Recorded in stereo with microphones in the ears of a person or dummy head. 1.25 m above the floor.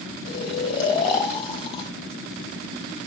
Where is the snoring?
40° left (ahead or behind), 1.7 m.